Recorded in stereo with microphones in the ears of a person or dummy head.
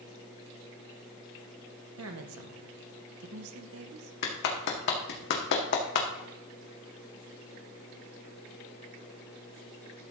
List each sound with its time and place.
2.0 s a woman speaking: 70° right (ahead or behind), 1.4 m
4.2 s a clap: 55° left (ahead or behind), 1.9 m